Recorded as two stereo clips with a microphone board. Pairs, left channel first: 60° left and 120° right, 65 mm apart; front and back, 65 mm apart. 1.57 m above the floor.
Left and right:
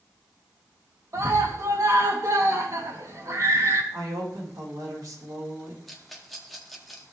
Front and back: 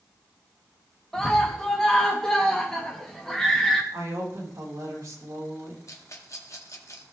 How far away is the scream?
About 2.5 m.